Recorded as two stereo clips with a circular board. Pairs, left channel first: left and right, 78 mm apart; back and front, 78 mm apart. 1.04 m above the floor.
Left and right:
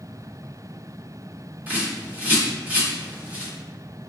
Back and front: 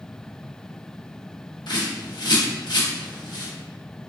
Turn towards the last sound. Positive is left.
turn(degrees=-160)